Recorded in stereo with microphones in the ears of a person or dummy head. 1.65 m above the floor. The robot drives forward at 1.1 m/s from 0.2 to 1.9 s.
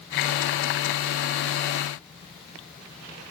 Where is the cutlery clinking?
I don't hear cutlery clinking.